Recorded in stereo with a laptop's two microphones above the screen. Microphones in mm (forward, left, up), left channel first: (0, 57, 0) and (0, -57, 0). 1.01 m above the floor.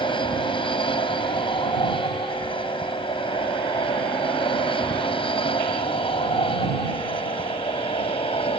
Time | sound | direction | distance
0.0 | an aircraft | 50° left (ahead or behind) | ?